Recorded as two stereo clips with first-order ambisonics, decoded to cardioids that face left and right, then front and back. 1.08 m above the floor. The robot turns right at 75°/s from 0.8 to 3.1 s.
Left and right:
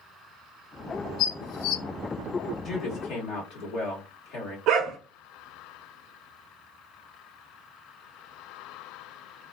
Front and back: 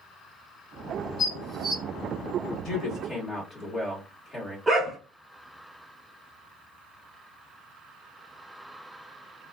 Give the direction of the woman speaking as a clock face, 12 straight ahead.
11 o'clock.